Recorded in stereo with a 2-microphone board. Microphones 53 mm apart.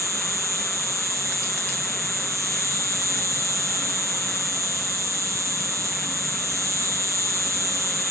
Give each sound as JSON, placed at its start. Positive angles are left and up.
{"t": 0.0, "sound": "an insect", "side_deg": -70, "distance_m": 3.0}